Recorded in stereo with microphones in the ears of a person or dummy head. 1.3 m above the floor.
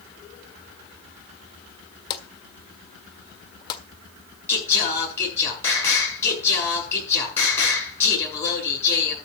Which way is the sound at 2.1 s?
30° left (ahead or behind).